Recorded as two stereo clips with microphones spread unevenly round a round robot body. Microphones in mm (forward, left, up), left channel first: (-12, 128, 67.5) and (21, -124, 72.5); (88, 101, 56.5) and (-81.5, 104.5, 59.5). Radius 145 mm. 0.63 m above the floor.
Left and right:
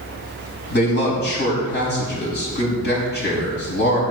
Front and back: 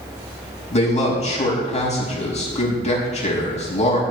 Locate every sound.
0.7 s a man speaking: 45° left, 5.5 m